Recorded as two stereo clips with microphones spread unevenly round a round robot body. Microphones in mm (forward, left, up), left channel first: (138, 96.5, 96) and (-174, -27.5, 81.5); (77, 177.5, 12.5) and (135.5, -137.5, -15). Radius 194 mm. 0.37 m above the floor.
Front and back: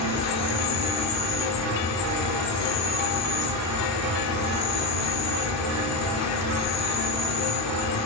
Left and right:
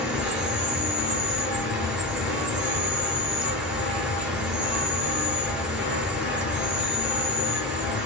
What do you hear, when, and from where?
0.0 s an insect: straight ahead, 0.9 m